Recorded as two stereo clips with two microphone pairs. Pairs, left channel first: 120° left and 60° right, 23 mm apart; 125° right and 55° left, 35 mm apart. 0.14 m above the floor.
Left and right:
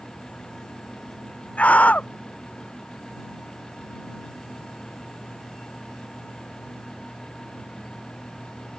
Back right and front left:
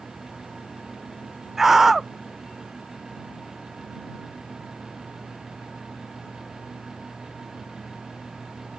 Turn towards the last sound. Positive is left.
turn(degrees=135)